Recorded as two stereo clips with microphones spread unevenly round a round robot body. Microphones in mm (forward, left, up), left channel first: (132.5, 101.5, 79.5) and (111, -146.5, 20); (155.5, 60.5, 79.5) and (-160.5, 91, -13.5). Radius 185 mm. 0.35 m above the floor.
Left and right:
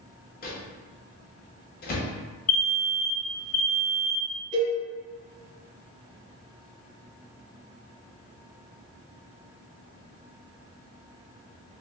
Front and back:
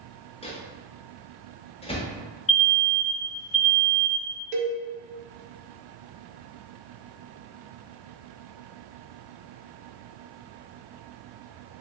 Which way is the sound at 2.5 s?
50° left.